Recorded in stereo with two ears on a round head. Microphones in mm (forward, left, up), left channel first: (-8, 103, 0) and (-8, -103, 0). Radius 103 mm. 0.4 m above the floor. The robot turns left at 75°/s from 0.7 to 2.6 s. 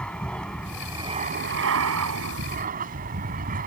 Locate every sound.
0.0 s an aircraft: 5° left; by 3.7 s 140° right